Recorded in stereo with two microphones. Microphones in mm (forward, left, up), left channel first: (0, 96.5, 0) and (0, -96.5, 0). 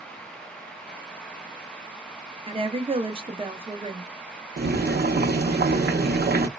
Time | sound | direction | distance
2.5 | a woman speaking | 30° right (ahead or behind) | 0.6 m
4.6 | boiling | 55° right (ahead or behind) | 0.5 m